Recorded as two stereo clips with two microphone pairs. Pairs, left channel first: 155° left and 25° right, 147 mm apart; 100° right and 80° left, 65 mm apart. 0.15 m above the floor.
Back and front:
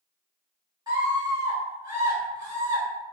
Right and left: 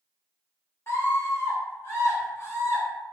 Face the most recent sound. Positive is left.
turn(degrees=-75)